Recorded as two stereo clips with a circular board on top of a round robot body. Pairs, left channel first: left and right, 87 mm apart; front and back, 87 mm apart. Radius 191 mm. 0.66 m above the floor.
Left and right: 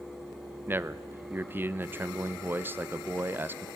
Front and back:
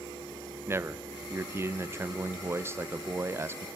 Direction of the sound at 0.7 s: 140° right.